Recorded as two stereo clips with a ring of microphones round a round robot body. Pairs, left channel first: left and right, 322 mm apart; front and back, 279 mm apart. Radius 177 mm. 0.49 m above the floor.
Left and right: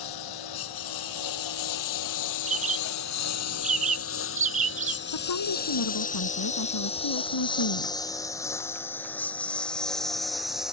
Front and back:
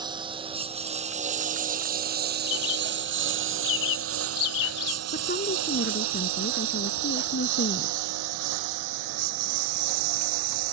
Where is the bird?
20° right.